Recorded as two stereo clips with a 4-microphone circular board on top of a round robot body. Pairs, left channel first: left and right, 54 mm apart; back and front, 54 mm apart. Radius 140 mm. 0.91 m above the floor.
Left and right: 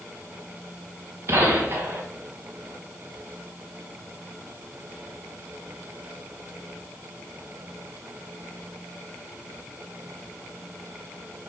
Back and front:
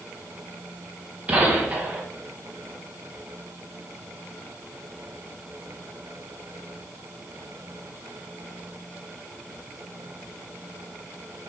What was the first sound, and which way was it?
A gunshot, 55° right.